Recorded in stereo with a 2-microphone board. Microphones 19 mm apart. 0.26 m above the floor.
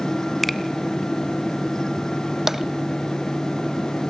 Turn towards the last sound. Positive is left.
turn(degrees=-15)  # may be behind; listen again after turning